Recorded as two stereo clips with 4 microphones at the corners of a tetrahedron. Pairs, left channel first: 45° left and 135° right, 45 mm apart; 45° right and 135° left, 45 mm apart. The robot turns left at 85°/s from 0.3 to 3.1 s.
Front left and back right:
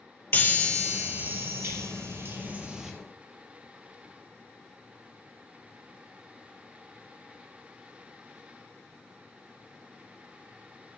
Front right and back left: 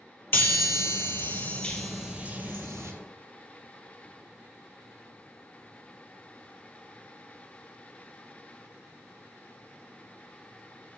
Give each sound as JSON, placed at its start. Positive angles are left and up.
{"t": 0.3, "sound": "a chime", "azimuth_deg": 0, "distance_m": 2.5}